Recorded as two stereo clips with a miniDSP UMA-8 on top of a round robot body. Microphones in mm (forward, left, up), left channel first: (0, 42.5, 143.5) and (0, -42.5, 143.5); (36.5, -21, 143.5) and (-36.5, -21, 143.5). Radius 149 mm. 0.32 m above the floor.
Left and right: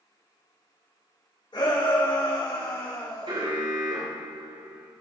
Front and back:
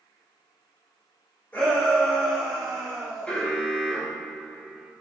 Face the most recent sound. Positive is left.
turn(degrees=-75)